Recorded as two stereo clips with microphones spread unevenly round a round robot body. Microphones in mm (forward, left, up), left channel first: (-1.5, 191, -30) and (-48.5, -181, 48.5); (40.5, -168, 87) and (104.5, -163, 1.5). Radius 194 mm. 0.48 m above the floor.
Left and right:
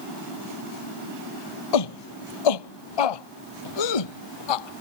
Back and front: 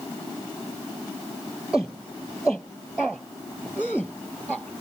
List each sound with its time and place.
1.7 s a shout: 105° left; by 4.8 s 100° left